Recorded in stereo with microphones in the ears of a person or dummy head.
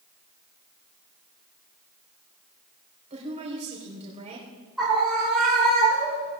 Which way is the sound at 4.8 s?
Centre (ahead or behind).